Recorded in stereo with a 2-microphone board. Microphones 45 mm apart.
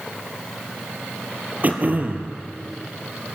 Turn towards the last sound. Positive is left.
turn(degrees=-40)  # may be behind; listen again after turning